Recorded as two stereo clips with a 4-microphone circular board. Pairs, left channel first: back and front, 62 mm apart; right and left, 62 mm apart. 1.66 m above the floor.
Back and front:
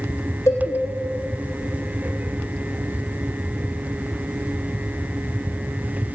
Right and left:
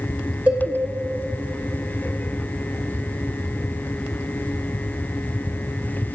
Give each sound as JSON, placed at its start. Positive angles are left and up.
{"t": 0.5, "sound": "a cowbell", "azimuth_deg": 155, "distance_m": 2.5}